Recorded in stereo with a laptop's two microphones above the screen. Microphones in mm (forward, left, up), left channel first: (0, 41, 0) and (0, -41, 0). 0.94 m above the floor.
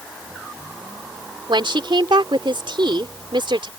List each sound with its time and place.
1.5 s a woman speaking: 80° right